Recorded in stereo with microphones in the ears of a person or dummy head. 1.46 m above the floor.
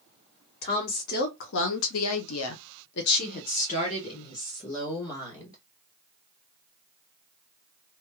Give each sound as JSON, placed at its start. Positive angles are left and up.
{"t": 0.6, "sound": "a woman speaking", "side_deg": 45, "distance_m": 1.2}